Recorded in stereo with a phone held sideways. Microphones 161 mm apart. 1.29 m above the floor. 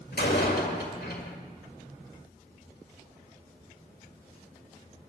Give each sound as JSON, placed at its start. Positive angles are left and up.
{"t": 0.1, "sound": "a door slam", "side_deg": 80, "distance_m": 1.9}